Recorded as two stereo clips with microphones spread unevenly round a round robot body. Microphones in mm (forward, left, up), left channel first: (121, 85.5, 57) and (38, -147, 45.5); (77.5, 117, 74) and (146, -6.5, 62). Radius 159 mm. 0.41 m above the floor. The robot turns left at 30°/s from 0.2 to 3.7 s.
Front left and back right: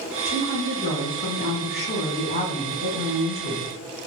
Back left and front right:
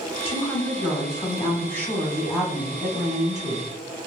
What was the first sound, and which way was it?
A woman speaking, 85° left.